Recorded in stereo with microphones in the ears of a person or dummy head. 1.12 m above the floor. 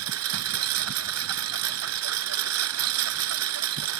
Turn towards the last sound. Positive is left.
turn(degrees=-80)